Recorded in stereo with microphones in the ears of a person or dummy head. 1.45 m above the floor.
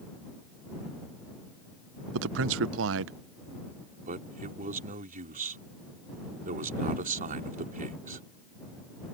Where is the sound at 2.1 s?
75° right (ahead or behind).